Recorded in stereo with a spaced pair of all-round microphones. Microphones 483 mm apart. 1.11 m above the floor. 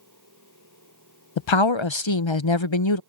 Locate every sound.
0.0 s a machine running: 35° right (ahead or behind)
1.4 s a woman speaking: 70° left (ahead or behind)